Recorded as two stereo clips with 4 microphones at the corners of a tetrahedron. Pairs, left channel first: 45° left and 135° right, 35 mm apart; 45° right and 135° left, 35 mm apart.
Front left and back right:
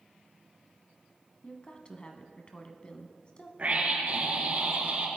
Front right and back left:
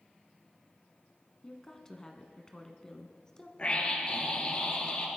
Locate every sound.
1.4 s a woman speaking: 10° left, 1.3 m
3.6 s a scream: 100° right, 3.5 m